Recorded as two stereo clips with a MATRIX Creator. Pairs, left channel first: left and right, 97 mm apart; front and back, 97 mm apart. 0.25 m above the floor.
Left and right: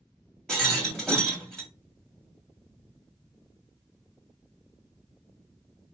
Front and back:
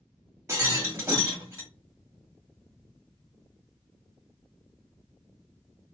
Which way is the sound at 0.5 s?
170° left.